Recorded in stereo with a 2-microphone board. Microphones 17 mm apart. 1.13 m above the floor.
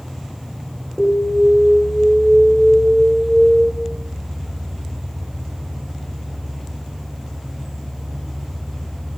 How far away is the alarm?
About 1.9 m.